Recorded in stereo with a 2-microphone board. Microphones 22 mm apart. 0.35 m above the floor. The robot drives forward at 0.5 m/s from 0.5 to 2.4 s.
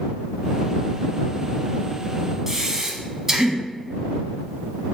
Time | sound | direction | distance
2.5 | breathing | 20° right (ahead or behind) | 0.5 m